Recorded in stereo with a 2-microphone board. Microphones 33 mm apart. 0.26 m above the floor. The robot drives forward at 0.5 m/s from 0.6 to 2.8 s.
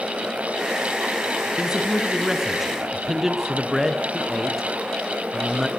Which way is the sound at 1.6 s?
10° right (ahead or behind).